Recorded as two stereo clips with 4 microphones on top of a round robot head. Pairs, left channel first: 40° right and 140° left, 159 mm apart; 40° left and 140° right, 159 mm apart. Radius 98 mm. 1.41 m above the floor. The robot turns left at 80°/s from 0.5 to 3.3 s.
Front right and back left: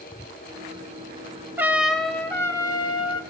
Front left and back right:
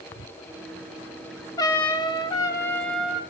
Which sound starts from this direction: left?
A trumpet, at 1.6 s.